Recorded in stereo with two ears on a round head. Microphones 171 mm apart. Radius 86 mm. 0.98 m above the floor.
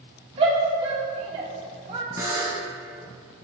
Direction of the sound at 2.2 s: 15° right (ahead or behind).